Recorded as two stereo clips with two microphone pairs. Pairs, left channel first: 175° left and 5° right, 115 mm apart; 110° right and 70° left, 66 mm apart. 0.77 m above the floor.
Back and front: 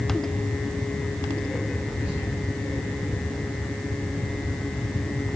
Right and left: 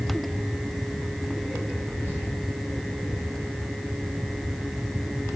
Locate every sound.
1.9 s whispering: 60° left, 1.3 m